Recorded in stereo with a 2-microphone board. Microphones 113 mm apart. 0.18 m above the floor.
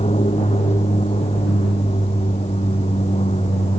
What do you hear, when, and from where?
0.0 s an aircraft: 75° left (ahead or behind); by 3.8 s 80° left